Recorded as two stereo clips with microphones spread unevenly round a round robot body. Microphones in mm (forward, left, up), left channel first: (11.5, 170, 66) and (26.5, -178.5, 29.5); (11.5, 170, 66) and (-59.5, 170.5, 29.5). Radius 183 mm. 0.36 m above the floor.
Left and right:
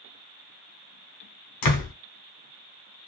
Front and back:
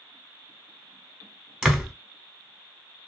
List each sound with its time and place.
1.6 s a door slam: 115° left, 1.0 m